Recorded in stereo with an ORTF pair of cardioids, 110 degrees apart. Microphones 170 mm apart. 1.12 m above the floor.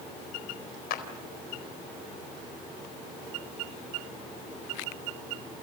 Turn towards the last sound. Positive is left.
turn(degrees=65)